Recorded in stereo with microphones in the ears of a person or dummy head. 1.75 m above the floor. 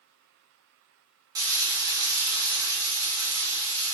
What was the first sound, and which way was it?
Frying, 20° right (ahead or behind).